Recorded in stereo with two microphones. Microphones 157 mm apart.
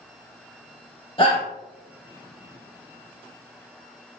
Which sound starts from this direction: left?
A shout, at 1.2 s.